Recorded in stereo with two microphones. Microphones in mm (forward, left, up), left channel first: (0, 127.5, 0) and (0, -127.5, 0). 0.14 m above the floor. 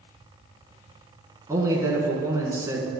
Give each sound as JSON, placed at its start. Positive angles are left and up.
{"t": 1.5, "sound": "a man speaking", "side_deg": -10, "distance_m": 1.5}